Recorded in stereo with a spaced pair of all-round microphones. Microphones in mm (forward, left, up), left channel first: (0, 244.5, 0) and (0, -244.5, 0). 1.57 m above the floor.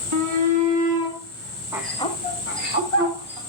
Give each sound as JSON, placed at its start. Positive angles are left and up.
{"t": 0.1, "sound": "a shout", "side_deg": -75, "distance_m": 2.5}